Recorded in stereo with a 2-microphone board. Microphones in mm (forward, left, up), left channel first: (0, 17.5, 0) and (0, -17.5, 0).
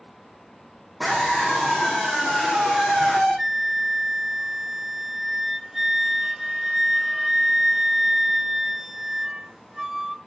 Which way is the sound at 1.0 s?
Centre (ahead or behind).